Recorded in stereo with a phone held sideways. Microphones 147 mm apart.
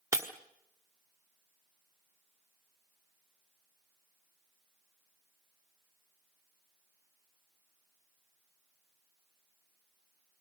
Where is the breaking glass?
20° right (ahead or behind), 1.5 m.